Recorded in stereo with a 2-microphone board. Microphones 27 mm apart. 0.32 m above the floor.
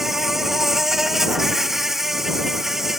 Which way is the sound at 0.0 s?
10° right (ahead or behind).